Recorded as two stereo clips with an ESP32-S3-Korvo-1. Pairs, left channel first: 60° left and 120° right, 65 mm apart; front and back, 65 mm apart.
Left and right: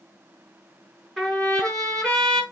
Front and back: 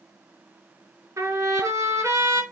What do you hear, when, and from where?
1.2 s a trumpet: 145° left, 5.5 m